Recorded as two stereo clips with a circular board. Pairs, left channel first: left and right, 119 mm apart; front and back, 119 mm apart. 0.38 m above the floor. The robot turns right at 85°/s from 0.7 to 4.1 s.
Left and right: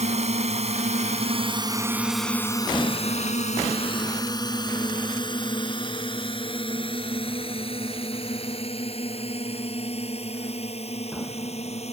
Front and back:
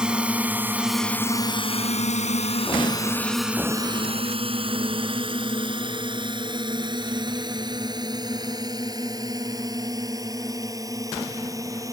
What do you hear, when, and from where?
0.0 s a drone: 95° right; by 11.9 s 120° left